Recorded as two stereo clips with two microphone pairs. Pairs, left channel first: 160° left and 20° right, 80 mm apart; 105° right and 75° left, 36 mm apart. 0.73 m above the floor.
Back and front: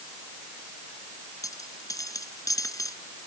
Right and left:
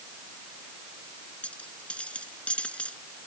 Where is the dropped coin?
160° right.